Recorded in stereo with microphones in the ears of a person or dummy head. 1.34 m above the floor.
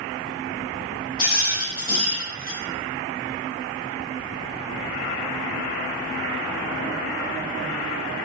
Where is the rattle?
55° left (ahead or behind), 1.0 m.